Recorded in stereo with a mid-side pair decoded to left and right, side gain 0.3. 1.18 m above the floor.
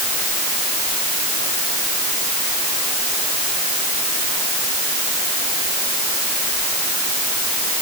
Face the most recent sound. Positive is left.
No sound to turn to.